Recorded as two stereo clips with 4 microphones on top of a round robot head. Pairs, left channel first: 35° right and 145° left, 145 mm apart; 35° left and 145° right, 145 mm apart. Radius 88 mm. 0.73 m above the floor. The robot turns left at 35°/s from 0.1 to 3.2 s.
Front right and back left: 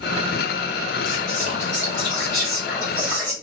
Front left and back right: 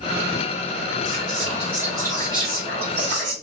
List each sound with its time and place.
1.1 s whispering: 45° right, 1.9 m; by 3.3 s 120° right, 1.9 m